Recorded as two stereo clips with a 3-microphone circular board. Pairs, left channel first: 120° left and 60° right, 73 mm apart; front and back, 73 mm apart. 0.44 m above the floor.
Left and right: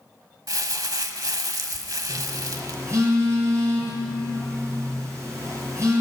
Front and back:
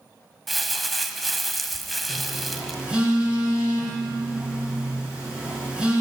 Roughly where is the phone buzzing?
Right.